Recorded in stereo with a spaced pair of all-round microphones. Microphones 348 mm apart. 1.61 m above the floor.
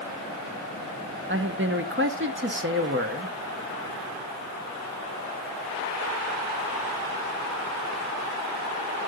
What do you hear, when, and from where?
1.3 s a man speaking: 35° right (ahead or behind), 1.0 m